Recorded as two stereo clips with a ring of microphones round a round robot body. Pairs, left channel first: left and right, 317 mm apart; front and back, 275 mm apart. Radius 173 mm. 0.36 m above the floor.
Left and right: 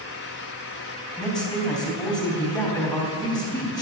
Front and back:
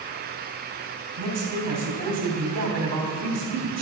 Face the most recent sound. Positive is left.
turn(degrees=170)